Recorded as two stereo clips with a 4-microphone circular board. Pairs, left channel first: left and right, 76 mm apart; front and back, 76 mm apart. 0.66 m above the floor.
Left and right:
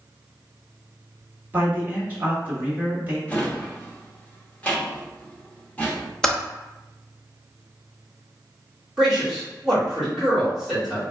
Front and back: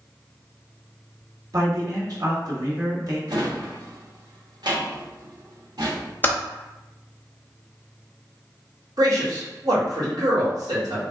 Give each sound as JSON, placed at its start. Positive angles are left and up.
{"t": 1.5, "sound": "a man speaking", "azimuth_deg": -155, "distance_m": 1.5}
{"t": 3.3, "sound": "a drawer", "azimuth_deg": 160, "distance_m": 0.8}
{"t": 6.2, "sound": "typing on a keyboard", "azimuth_deg": 20, "distance_m": 0.6}
{"t": 9.0, "sound": "a man speaking", "azimuth_deg": -175, "distance_m": 1.8}